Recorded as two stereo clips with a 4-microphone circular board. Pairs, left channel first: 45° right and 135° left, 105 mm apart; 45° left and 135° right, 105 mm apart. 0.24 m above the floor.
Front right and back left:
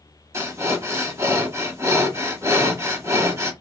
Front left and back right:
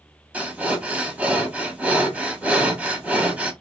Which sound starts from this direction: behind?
Breathing, at 0.3 s.